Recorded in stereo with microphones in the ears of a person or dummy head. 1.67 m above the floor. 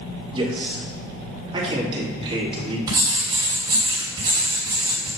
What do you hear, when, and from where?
0.3 s a man speaking: 30° right (ahead or behind), 2.5 m
2.9 s writing: 25° right (ahead or behind), 3 m